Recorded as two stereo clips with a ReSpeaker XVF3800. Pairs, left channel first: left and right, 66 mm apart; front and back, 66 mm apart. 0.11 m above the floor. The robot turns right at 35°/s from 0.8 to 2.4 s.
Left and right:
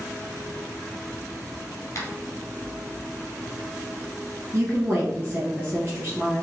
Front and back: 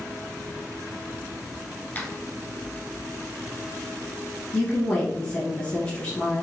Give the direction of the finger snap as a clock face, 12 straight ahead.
10 o'clock.